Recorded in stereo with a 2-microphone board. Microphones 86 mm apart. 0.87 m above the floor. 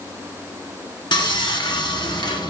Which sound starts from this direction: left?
Sawing, at 1.1 s.